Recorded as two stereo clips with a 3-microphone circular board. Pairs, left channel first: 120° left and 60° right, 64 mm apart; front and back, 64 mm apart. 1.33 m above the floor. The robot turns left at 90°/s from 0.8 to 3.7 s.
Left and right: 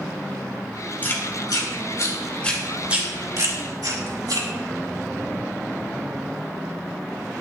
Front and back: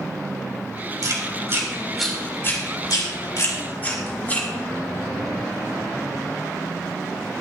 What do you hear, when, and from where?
1.0 s chewing: straight behind, 3 m; by 4.5 s 65° right, 3 m